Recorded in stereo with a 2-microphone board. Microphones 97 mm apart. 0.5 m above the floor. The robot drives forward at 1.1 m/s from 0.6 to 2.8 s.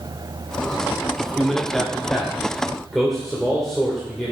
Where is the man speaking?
5° left (ahead or behind), 1.0 m.